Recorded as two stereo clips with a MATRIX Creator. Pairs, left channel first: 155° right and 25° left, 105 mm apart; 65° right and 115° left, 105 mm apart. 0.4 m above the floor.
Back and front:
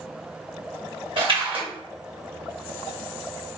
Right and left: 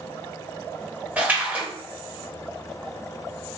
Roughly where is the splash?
Ahead left.